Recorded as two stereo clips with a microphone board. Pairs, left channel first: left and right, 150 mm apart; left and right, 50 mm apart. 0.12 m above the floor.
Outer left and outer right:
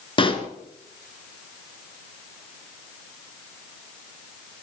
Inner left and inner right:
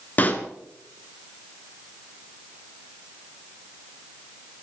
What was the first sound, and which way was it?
A pop, 35° left (ahead or behind).